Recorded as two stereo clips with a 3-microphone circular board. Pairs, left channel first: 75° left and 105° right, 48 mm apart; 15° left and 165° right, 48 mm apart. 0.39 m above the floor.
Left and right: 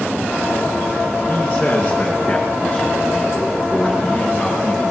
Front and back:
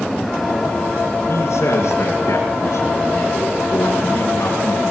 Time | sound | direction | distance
1.3 | a man speaking | 5° left | 4 m